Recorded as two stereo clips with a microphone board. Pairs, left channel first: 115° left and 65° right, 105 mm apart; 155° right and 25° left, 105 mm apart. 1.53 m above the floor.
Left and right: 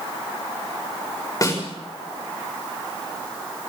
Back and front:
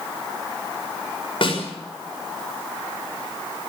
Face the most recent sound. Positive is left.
turn(degrees=165)